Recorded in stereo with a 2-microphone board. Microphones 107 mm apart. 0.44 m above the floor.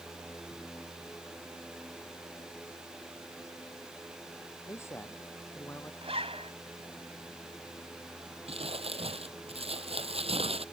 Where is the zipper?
60° right (ahead or behind).